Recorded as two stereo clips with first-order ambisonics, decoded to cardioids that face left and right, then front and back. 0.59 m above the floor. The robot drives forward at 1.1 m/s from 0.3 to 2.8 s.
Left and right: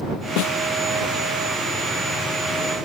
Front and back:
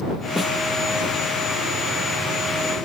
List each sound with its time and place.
0.4 s a snare drum: 90° left